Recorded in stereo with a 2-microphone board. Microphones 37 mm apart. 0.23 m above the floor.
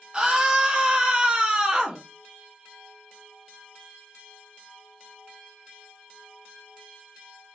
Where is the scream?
20° right (ahead or behind), 1.1 m.